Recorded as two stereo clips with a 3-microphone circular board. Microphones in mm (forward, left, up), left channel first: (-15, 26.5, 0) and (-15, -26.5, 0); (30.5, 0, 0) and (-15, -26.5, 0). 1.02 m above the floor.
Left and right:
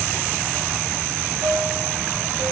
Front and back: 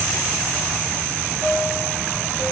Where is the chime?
75° right, 7.5 m.